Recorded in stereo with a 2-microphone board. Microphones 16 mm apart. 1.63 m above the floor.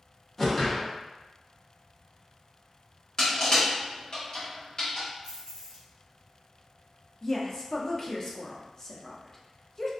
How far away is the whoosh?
About 0.7 m.